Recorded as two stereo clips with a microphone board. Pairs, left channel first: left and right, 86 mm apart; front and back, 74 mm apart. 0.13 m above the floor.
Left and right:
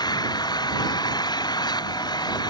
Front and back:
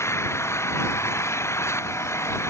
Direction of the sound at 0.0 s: 55° left.